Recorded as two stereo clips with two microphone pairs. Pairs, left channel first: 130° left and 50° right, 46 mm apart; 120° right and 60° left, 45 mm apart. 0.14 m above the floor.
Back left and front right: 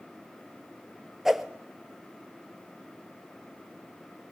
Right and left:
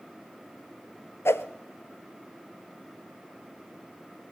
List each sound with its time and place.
1.2 s a whoosh: 135° right, 0.5 m